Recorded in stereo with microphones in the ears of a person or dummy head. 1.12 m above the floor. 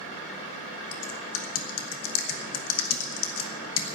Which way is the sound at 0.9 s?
80° left.